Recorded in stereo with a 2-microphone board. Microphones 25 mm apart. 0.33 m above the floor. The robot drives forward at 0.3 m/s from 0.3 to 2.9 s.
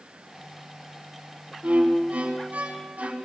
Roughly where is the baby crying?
I don't hear a baby crying.